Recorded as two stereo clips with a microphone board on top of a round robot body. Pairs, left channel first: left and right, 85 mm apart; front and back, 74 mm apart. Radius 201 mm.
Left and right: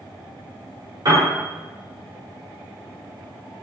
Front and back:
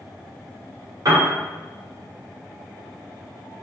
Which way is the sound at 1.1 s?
135° right.